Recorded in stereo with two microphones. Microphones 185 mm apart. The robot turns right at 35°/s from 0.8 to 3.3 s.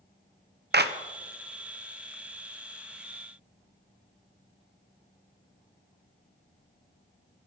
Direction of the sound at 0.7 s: 65° right (ahead or behind).